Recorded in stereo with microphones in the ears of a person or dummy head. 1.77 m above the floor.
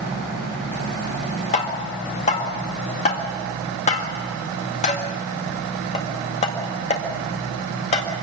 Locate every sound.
1.5 s tapping: 35° left (ahead or behind), 1.9 m